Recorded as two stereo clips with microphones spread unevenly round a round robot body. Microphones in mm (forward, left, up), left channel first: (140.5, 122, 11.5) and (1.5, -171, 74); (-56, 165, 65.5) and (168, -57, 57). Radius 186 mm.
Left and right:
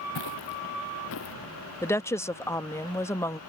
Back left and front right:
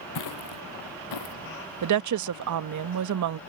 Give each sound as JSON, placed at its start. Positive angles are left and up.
{"t": 0.1, "sound": "footsteps", "azimuth_deg": 110}
{"t": 1.8, "sound": "a woman speaking", "azimuth_deg": -15}